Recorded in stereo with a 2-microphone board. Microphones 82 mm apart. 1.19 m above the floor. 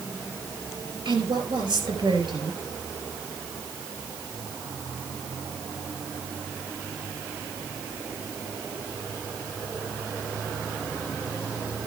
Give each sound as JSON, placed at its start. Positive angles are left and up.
{"t": 1.1, "sound": "a woman speaking", "side_deg": -80, "distance_m": 4.0}